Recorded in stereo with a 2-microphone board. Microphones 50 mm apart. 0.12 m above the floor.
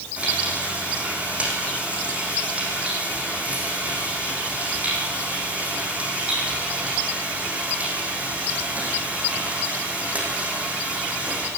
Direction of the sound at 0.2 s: 25° right (ahead or behind).